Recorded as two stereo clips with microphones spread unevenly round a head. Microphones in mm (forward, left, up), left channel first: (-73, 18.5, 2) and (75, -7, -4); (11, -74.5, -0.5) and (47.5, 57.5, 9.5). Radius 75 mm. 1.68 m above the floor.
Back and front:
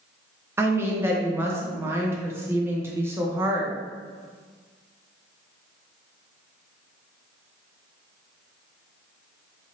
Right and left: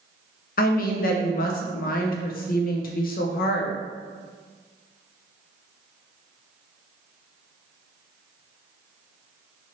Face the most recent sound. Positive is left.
turn(degrees=-85)